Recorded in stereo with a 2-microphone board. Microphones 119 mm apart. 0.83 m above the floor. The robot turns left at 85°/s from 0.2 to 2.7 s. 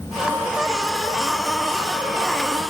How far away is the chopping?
No chopping in this recording.